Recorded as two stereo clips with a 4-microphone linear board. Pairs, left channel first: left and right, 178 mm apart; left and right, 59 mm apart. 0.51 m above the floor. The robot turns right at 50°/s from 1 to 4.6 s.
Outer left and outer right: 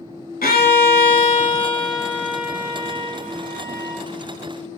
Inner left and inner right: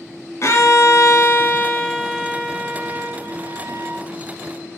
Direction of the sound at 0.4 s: 115° left.